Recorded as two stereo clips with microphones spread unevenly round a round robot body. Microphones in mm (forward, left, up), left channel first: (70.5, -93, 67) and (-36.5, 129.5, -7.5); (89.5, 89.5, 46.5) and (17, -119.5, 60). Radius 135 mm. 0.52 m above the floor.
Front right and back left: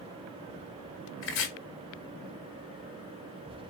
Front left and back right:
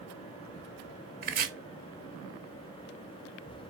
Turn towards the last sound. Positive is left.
turn(degrees=-90)